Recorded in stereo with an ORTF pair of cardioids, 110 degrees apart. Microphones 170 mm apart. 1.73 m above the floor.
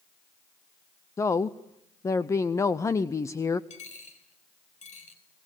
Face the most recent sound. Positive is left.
turn(degrees=45)